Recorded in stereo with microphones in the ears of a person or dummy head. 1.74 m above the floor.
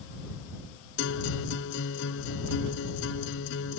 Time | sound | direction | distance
1.0 | a guitar | 70° left (ahead or behind) | ?